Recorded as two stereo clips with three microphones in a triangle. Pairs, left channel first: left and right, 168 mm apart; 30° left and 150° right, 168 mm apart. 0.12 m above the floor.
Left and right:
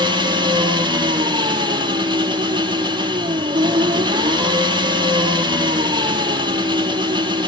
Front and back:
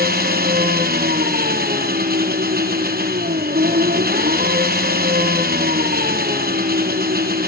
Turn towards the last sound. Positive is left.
turn(degrees=-150)